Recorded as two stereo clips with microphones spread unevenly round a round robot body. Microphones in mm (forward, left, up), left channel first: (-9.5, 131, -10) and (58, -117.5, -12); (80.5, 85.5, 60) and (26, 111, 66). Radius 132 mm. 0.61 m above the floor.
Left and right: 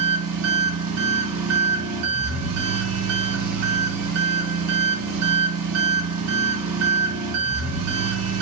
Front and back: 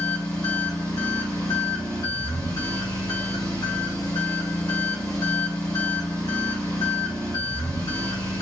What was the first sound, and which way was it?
An engine running, 70° right.